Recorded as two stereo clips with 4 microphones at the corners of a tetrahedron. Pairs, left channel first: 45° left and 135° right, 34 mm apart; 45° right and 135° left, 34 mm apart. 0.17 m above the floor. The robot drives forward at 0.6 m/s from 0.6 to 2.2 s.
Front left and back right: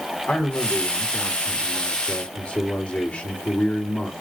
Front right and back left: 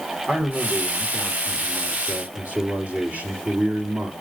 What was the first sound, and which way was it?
A man speaking, 75° left.